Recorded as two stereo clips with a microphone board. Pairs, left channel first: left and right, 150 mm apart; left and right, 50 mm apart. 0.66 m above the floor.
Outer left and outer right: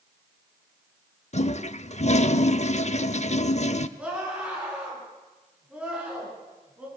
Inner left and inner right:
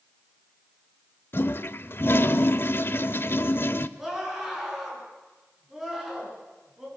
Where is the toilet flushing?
50° left (ahead or behind), 0.6 m.